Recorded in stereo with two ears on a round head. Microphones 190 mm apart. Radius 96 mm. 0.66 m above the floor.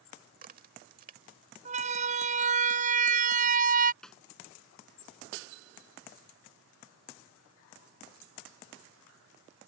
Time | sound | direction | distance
0.3 | a crack | 40° right (ahead or behind) | ?
1.6 | a siren | 35° right (ahead or behind) | ?
4.0 | a snare drum | 5° left (ahead or behind) | ?